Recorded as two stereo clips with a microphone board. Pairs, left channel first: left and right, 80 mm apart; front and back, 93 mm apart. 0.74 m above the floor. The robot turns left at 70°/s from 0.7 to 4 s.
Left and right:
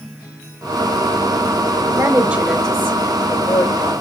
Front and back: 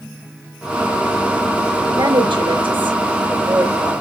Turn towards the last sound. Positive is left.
turn(degrees=75)